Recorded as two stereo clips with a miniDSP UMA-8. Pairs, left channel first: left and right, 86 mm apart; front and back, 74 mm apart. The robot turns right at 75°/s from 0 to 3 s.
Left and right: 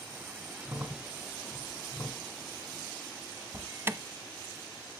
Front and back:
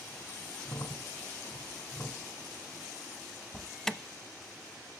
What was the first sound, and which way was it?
A crack, 30° right.